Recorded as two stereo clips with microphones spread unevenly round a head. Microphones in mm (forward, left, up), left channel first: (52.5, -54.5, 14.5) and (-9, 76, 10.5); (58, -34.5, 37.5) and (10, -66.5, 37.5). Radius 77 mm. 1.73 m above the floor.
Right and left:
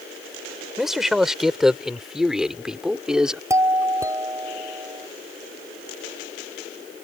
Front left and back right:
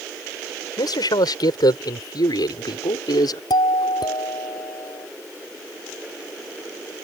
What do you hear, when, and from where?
0.8 s a man speaking: 25° left; by 3.4 s 30° left
3.5 s a doorbell: 45° left